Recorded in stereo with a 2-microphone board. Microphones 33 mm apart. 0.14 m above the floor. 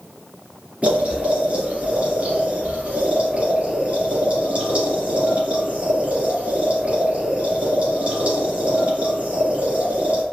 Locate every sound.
0.8 s boiling: 40° right (ahead or behind), 1.7 m